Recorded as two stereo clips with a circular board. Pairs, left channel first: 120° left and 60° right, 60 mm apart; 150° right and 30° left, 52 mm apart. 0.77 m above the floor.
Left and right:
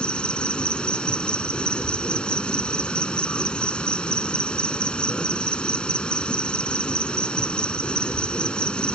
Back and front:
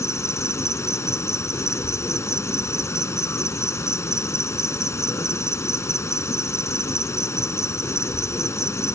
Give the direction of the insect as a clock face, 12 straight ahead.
6 o'clock.